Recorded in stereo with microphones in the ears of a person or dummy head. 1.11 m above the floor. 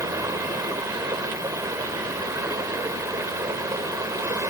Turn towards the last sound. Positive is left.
turn(degrees=-15)  # may be behind; listen again after turning